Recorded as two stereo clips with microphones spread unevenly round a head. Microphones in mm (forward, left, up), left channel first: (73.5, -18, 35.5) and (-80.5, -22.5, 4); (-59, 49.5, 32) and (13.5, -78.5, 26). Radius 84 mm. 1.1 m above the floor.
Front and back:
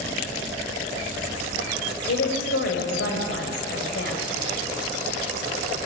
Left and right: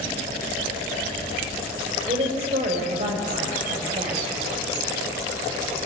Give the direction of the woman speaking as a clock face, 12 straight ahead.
12 o'clock.